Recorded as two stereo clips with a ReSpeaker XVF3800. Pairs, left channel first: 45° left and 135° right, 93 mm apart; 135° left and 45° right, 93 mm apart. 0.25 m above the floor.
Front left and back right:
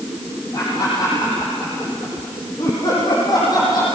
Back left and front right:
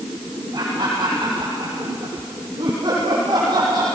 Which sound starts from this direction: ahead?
Laughter, at 0.5 s.